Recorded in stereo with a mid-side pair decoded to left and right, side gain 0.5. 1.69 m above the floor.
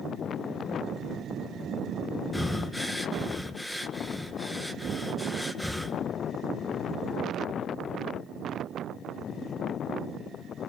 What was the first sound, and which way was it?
Breathing, 10° left.